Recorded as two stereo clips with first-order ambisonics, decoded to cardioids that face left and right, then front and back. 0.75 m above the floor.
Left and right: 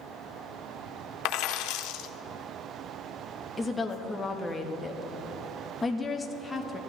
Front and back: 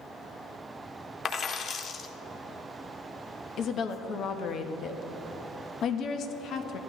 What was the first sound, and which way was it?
A dropped coin, 65° left.